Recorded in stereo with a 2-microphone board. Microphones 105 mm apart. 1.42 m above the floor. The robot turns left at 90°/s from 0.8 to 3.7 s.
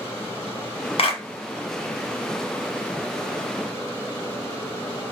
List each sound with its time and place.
1.0 s a clap: 65° left (ahead or behind), 0.9 m; by 1.2 s 45° left (ahead or behind), 0.9 m